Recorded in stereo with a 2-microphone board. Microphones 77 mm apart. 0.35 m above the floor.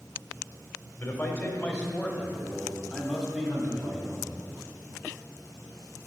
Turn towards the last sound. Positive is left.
turn(degrees=-15)  # may be behind; listen again after turning